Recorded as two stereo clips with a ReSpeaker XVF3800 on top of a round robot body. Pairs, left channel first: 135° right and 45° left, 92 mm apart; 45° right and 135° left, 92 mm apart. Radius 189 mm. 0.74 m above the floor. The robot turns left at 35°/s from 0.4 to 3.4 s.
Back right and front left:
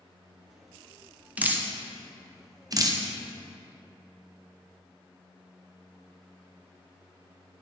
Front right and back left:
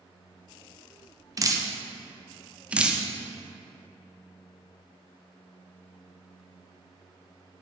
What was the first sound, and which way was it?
Dripping, 110° left.